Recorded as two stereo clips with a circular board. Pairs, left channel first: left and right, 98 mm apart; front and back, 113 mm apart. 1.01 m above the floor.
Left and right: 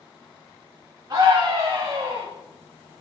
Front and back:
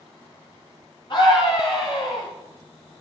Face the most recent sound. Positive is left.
turn(degrees=-45)